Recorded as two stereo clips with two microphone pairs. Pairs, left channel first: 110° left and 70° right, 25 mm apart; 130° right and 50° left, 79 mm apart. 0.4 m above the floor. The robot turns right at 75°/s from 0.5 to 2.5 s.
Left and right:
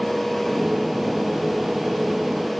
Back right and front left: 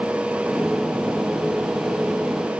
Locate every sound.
Only background noise.